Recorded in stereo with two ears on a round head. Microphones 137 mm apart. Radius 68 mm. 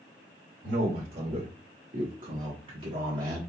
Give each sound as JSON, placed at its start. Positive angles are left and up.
{"t": 0.6, "sound": "a man speaking", "side_deg": -65, "distance_m": 2.0}